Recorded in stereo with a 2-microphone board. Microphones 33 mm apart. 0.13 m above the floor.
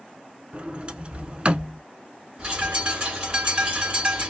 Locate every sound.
0.5 s a sliding door: 35° right (ahead or behind), 0.5 m
2.4 s a bird: 30° right (ahead or behind), 1.5 m